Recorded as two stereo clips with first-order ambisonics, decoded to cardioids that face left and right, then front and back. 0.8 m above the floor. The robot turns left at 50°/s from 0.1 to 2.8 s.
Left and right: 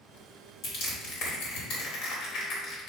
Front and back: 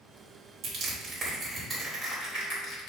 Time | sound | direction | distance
0.6 | crushing | 140° left | 2.5 m